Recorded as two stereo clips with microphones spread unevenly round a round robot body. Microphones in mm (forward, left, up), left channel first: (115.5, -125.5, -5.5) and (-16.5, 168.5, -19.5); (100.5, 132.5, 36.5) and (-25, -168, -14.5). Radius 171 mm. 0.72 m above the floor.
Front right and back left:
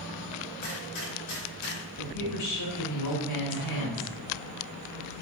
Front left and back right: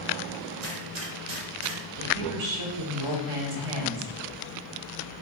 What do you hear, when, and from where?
0.6 s a gunshot: 100° right, 3 m
2.0 s a woman speaking: 110° right, 2.5 m